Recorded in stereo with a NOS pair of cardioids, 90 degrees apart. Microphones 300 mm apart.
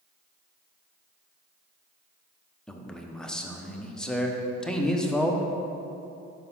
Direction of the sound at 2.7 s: Straight ahead.